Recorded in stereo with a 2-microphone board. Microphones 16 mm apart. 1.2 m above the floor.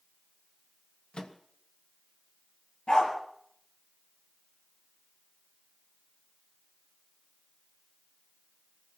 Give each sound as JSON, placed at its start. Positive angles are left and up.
{"t": 1.1, "sound": "a microwave", "side_deg": 80, "distance_m": 1.3}
{"t": 2.9, "sound": "a dog barking", "side_deg": 80, "distance_m": 5.5}